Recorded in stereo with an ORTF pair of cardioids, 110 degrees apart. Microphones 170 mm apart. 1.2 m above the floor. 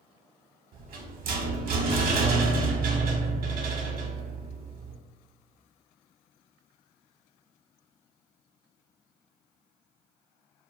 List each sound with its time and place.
0.7 s a rattle: 60° right, 0.7 m